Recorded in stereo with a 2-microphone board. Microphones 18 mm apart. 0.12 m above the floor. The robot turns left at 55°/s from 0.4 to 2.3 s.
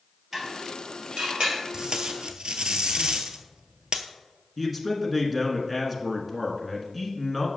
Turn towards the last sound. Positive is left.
turn(degrees=-5)  # may be behind; listen again after turning